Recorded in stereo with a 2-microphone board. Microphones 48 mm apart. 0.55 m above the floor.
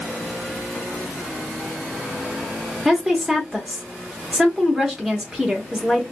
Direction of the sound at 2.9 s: 10° right (ahead or behind).